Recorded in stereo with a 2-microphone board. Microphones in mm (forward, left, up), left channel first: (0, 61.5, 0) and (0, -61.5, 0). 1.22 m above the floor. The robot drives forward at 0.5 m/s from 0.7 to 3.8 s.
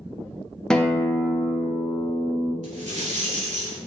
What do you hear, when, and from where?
0.7 s a guitar: 5° left (ahead or behind), 0.6 m
2.6 s a rattle: 70° right (ahead or behind), 2 m; by 3.8 s 60° right (ahead or behind), 2.5 m